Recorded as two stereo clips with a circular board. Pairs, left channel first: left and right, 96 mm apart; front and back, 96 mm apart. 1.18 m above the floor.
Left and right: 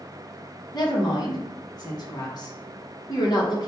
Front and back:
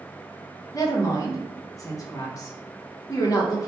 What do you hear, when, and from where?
0.7 s a woman speaking: 50° left, 1.2 m